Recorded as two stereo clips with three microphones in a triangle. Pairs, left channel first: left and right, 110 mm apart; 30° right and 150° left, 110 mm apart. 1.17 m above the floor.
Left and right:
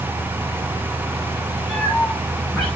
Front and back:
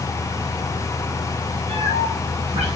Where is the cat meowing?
175° left, 7 m.